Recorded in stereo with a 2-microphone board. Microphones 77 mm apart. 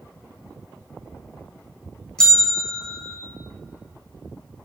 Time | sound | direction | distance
2.2 | a bell | 10° left (ahead or behind) | 1.4 m